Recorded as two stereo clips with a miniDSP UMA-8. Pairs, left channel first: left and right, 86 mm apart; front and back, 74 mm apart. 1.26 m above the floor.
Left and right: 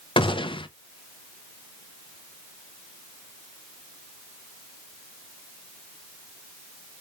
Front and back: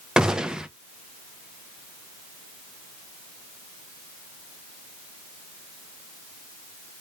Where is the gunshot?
100° left, 0.5 m.